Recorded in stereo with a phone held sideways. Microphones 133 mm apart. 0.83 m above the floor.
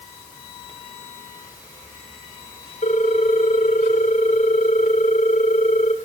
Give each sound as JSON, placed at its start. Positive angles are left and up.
{"t": 2.8, "sound": "a ringtone", "side_deg": 85, "distance_m": 1.7}